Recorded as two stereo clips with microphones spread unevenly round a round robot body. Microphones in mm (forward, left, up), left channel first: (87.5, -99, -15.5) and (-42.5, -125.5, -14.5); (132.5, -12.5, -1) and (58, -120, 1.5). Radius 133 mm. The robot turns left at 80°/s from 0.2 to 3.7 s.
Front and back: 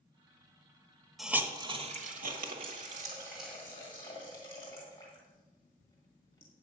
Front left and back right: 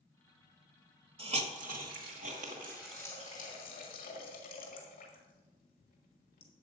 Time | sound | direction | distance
1.2 | a hiss | 80° right | 1.4 m